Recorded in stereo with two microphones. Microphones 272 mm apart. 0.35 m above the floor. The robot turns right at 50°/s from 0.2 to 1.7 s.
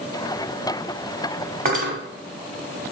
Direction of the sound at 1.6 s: 35° right (ahead or behind).